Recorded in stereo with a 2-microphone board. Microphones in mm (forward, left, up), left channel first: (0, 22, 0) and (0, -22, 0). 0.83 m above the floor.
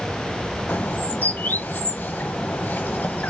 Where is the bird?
45° left (ahead or behind), 1.0 m.